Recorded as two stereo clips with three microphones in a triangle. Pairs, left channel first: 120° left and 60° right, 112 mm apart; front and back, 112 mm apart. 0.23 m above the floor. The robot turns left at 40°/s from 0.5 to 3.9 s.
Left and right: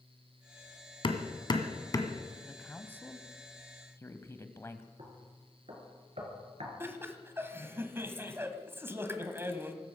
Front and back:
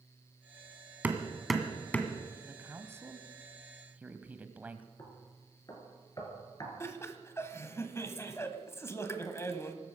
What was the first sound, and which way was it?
Hammering, 110° left.